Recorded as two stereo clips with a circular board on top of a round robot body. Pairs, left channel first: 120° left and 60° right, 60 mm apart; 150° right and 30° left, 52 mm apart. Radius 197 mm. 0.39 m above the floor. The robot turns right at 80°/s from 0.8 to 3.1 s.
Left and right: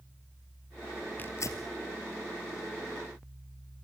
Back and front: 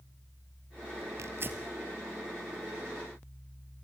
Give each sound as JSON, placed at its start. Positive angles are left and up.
{"t": 1.2, "sound": "tearing paper", "azimuth_deg": 60, "distance_m": 2.0}